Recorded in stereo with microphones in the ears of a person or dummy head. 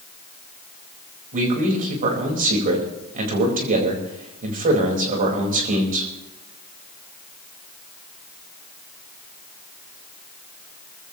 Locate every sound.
1.3 s a man speaking: 45° right (ahead or behind), 4 m